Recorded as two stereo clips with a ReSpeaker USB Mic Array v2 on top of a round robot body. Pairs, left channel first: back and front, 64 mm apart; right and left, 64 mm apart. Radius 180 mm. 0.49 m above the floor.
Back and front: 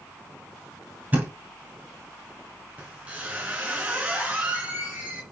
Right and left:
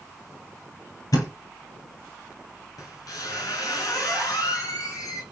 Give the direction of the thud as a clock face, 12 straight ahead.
2 o'clock.